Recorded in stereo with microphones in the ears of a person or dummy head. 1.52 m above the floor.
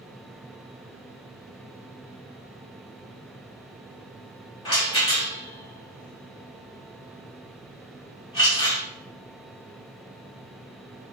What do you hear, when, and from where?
4.7 s a rattle: 20° left (ahead or behind), 0.9 m